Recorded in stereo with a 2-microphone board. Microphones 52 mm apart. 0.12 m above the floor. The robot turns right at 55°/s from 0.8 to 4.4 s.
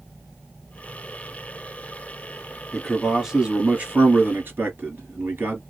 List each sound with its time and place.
2.7 s a man speaking: 170° left, 1.6 m; by 5.6 s 100° right, 1.6 m